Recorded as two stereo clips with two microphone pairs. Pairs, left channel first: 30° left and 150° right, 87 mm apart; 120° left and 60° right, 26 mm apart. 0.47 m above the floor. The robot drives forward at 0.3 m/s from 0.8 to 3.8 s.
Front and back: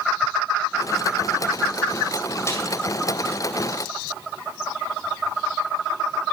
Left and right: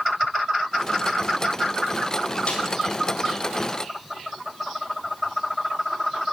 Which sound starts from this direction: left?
A snare drum, at 2.5 s.